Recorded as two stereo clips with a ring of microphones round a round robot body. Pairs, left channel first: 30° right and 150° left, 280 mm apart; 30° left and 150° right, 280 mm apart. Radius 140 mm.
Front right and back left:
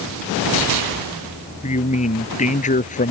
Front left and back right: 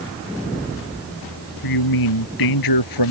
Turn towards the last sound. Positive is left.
turn(degrees=35)